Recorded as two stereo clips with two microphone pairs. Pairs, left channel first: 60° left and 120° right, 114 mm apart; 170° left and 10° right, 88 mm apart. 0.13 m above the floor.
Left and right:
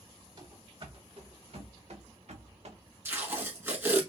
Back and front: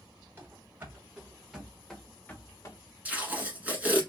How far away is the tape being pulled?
About 1.3 m.